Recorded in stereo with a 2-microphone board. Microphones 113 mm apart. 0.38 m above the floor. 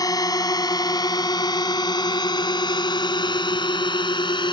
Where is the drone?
35° left (ahead or behind); by 4.5 s 45° left (ahead or behind).